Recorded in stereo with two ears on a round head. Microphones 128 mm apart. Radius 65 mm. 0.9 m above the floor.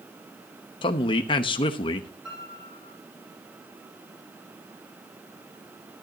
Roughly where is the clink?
I don't hear a clink.